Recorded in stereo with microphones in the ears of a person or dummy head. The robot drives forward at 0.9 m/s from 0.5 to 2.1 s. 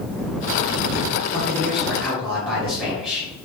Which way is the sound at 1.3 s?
10° left (ahead or behind).